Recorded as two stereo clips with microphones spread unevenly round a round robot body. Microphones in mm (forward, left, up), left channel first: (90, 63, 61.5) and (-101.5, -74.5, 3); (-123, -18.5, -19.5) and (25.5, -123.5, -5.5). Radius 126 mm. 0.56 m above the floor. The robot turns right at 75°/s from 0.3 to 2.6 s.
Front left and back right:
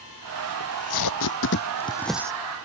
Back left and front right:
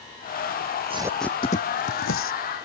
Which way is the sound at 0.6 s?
10° left.